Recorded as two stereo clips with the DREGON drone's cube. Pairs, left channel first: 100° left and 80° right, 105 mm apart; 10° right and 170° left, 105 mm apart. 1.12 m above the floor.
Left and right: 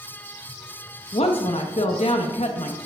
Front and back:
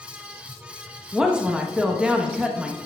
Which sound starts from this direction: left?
A woman speaking, at 1.1 s.